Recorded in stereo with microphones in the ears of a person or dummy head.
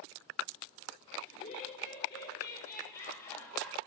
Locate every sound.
1.3 s laughter: 30° left (ahead or behind), 4.5 m; by 3.8 s 10° left (ahead or behind), 5.5 m